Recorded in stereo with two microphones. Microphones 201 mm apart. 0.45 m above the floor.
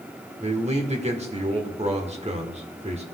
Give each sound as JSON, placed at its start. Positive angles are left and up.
{"t": 0.4, "sound": "a man speaking", "side_deg": -30, "distance_m": 1.2}